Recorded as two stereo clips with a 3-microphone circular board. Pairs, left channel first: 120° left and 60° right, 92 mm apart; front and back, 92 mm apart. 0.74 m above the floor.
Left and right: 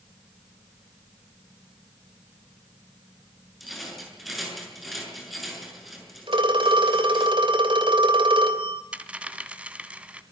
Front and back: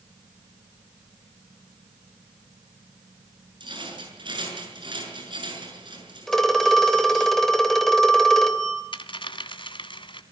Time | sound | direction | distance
3.6 | a rattle | 150° right | 6.5 m
6.3 | a phone ringing | 85° right | 2.5 m
8.9 | a dropped coin | 15° left | 1.4 m